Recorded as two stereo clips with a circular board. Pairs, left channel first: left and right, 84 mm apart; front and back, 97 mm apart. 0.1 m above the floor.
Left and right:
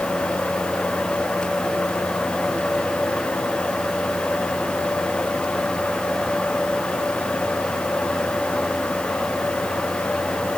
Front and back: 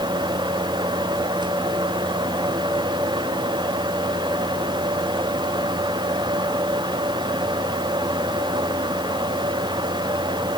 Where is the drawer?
I don't hear a drawer.